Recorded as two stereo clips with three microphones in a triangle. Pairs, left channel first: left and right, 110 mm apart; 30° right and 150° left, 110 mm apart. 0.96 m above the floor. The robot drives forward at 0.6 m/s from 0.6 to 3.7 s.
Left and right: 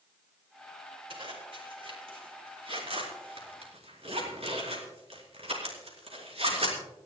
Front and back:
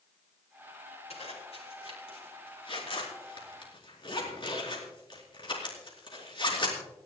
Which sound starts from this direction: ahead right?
A zipper, at 1.1 s.